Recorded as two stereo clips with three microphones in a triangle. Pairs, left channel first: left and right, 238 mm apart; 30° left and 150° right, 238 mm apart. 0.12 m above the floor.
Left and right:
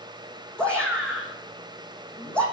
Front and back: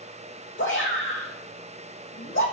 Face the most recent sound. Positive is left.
turn(degrees=5)